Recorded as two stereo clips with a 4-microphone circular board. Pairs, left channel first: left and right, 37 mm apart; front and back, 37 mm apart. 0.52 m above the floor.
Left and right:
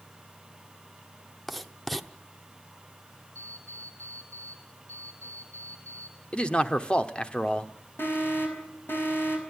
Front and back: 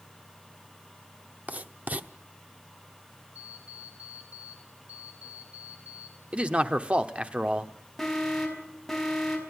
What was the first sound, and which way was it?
Writing, straight behind.